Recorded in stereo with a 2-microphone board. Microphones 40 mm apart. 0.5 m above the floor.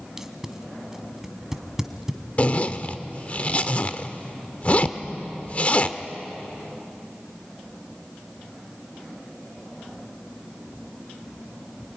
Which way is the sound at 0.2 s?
10° right (ahead or behind).